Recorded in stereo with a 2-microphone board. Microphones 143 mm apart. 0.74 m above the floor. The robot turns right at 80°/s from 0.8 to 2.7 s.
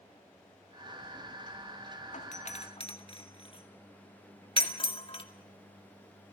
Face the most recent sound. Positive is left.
turn(degrees=40)  # may be behind; listen again after turning